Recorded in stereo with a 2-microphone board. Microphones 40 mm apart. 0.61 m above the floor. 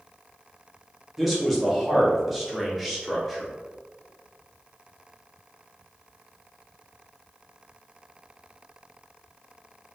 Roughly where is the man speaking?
Centre.